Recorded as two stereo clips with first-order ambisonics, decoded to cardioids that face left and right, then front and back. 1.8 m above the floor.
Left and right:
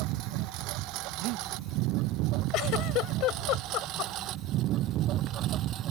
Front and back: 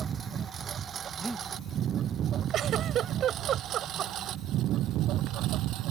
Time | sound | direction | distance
0.0 | a lawn mower | 115° right | ?
1.2 | breathing | 95° right | ?
2.5 | a giggle | 125° left | ?